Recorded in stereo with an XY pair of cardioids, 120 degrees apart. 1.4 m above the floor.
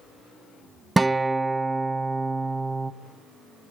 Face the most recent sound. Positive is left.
turn(degrees=-15)